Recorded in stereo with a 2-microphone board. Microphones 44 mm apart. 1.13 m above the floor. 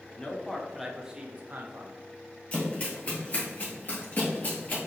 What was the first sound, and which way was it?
A man speaking, 25° left (ahead or behind).